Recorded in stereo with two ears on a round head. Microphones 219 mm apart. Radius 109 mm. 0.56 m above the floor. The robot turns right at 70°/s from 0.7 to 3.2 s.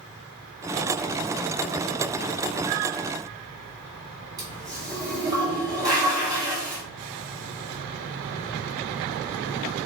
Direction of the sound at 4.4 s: 20° right (ahead or behind).